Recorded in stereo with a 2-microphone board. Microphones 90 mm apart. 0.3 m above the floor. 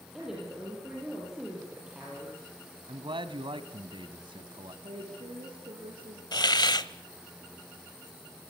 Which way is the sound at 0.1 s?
5° right (ahead or behind).